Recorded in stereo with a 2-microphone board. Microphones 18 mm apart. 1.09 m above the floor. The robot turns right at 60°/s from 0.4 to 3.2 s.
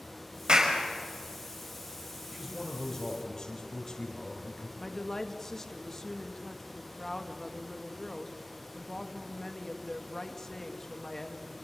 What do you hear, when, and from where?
0.5 s a clap: 50° right (ahead or behind), 4.5 m; by 0.8 s 30° right (ahead or behind), 4.5 m
2.3 s a man speaking: 20° right, 4.5 m; by 4.7 s 30° left, 4.5 m
4.8 s a woman speaking: 25° left (ahead or behind), 1.8 m